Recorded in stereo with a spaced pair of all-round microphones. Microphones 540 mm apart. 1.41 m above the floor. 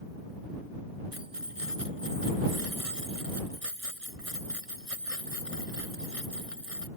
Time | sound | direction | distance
1.1 | keys jangling | 85° right | ?